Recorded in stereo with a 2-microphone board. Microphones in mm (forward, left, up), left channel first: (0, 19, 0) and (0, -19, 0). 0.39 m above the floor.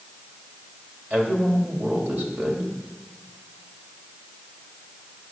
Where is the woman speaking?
55° right (ahead or behind), 2 m.